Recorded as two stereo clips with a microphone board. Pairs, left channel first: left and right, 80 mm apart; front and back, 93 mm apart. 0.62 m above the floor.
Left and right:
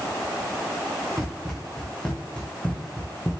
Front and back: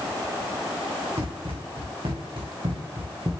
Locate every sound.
1.2 s running footsteps: straight behind, 3 m; by 3.3 s 150° left, 2 m